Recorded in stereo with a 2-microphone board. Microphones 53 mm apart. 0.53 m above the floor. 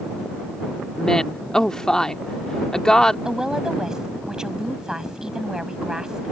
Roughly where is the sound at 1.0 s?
Centre.